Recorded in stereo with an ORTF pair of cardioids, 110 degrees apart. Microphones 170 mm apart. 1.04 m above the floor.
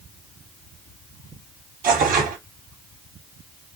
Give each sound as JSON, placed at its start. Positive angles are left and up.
{"t": 1.8, "sound": "tearing paper", "azimuth_deg": -55, "distance_m": 1.9}